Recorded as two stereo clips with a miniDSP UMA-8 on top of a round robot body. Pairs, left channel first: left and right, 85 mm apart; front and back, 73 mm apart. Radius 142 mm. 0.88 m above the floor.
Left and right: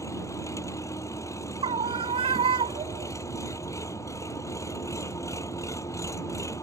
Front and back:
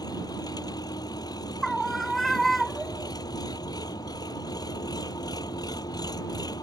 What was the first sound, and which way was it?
An engine running, 35° left.